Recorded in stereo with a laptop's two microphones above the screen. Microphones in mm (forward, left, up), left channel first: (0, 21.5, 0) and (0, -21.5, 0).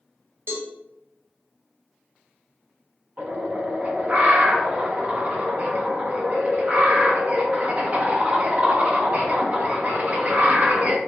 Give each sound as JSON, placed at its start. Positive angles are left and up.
{"t": 0.5, "sound": "a cowbell", "side_deg": -55, "distance_m": 1.1}
{"t": 3.2, "sound": "a bird", "side_deg": -30, "distance_m": 0.8}